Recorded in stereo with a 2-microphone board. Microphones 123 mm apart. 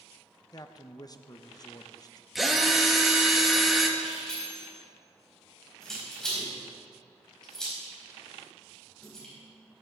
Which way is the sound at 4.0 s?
5° left (ahead or behind).